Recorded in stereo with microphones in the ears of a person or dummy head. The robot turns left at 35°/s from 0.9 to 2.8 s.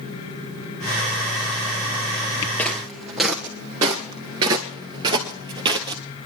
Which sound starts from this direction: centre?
Footsteps, at 2.6 s.